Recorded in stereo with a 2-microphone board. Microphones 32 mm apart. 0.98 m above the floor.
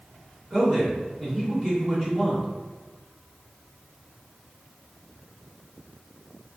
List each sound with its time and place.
0.5 s a man speaking: 30° right (ahead or behind), 1.7 m